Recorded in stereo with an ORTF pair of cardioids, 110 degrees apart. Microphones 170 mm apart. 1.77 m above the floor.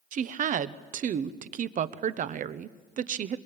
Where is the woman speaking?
50° right, 1.1 m.